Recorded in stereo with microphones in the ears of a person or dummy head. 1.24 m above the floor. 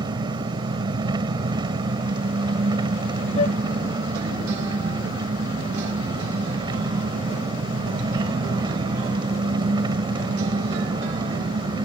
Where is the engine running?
30° right (ahead or behind).